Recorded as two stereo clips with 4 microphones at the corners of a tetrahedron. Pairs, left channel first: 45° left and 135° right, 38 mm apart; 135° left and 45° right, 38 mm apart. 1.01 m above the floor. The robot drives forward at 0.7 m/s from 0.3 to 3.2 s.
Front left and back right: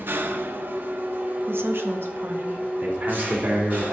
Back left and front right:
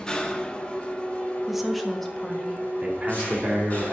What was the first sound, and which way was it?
An engine running, 155° right.